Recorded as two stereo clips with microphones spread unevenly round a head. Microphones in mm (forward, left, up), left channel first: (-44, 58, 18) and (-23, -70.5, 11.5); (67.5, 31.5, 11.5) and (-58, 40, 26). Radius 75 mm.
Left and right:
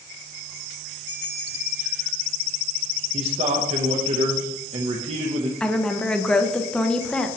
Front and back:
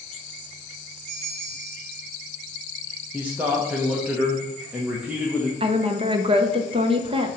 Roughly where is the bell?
Behind left.